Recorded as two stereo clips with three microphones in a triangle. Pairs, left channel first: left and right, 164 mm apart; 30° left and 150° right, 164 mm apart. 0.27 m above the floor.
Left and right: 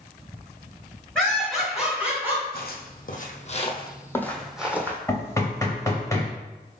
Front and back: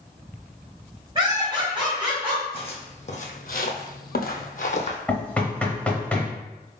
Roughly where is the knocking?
Left.